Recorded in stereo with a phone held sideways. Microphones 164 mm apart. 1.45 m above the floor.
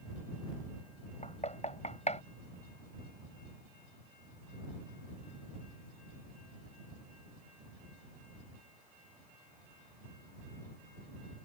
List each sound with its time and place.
1.2 s knocking: 45° left (ahead or behind)